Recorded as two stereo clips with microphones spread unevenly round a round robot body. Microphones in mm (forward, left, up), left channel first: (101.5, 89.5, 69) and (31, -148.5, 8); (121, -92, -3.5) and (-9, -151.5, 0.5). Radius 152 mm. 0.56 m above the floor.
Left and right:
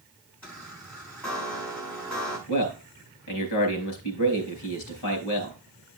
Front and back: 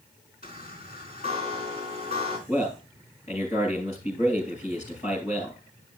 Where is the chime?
160° left, 3.5 m.